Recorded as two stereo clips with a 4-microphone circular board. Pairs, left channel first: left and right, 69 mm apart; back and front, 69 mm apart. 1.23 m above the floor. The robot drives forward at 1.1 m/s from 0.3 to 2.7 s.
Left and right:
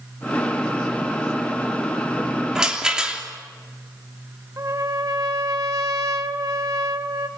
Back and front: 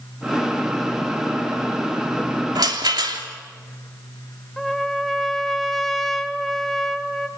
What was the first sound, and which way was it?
A rattle, 10° right.